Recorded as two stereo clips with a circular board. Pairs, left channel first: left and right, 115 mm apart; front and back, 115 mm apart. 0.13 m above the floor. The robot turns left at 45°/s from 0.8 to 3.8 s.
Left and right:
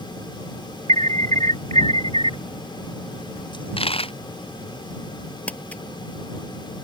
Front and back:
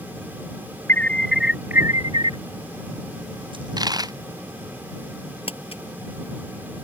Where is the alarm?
70° right; by 2.4 s 140° right.